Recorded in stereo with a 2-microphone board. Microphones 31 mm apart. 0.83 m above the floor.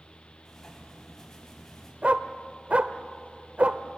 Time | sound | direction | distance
0.5 | writing | 15° left (ahead or behind) | 5 m
2.0 | a dog barking | 55° right (ahead or behind) | 0.8 m